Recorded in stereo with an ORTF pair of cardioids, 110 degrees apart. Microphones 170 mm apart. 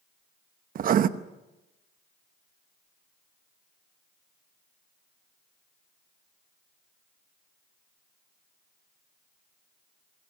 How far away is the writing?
About 1.0 m.